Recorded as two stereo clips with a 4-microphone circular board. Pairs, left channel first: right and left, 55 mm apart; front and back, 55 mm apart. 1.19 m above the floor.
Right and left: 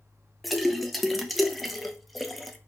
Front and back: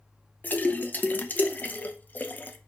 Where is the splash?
5° left, 0.5 m.